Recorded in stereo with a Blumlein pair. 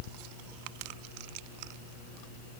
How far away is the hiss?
I don't hear a hiss.